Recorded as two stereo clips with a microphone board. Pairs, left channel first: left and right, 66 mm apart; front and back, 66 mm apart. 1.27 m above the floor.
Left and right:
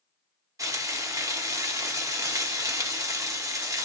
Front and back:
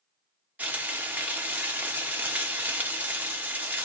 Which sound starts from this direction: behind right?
Frying, at 0.6 s.